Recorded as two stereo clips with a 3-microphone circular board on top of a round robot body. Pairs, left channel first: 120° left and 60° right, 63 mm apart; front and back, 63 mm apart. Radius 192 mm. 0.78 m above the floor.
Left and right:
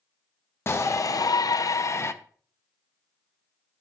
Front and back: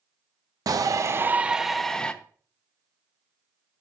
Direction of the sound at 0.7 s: 170° left.